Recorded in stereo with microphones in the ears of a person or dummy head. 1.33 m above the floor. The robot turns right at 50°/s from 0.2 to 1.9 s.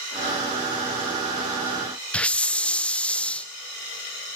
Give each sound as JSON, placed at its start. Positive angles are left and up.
{"t": 2.1, "sound": "a hiss", "side_deg": 5, "distance_m": 1.0}